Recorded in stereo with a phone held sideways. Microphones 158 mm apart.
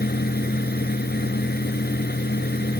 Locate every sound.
0.0 s a fan: 75° left (ahead or behind)